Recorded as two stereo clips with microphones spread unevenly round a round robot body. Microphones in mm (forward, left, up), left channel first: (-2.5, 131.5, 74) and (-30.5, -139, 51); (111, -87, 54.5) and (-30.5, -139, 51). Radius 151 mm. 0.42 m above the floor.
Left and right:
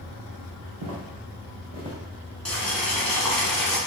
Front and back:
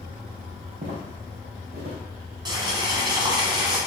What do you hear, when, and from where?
0.8 s footsteps: 125° right, 1.7 m; by 2.0 s 165° right, 1.5 m
2.5 s boiling: 175° left, 1.5 m